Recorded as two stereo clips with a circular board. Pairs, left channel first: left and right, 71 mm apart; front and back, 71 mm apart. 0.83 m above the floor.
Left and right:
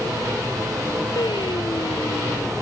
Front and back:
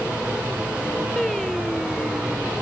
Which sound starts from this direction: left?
Singing, at 1.2 s.